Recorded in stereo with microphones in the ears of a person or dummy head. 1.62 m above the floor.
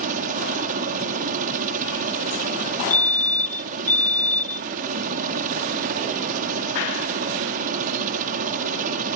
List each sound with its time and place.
0.0 s a helicopter: 45° right (ahead or behind)
2.9 s a fire alarm: 10° left (ahead or behind)